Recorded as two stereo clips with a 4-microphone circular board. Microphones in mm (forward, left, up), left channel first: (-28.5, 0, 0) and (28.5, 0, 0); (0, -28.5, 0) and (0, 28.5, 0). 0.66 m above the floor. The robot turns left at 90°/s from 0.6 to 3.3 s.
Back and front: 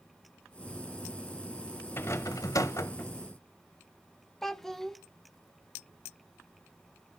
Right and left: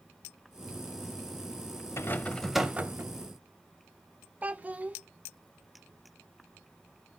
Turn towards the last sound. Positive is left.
turn(degrees=105)